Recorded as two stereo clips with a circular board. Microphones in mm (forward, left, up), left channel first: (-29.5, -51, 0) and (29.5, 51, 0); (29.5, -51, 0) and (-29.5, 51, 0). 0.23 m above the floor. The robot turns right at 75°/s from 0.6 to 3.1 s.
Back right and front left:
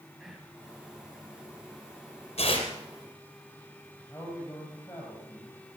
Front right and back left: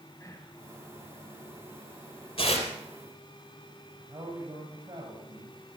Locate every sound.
0.2 s whispering: 25° right, 1.8 m
2.4 s tearing paper: 90° right, 3 m; by 2.7 s 65° right, 3 m
4.1 s a man speaking: 170° left, 7 m